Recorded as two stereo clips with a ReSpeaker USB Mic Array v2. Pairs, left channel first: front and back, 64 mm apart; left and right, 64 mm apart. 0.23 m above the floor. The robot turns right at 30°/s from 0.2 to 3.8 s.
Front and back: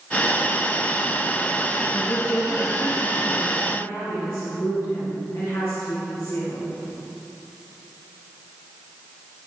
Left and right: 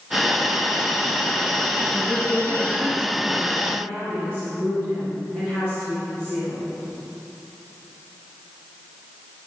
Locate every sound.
1.9 s a woman speaking: 50° right, 2 m; by 3.5 s 5° right, 2 m
3.7 s a woman speaking: 40° right, 3.5 m; by 6.7 s 35° right, 3.5 m